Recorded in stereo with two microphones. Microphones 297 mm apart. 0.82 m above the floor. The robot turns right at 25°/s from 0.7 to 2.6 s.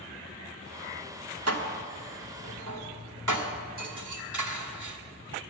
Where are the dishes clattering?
55° right (ahead or behind), 1.5 m; by 5.0 s 85° right, 1.5 m.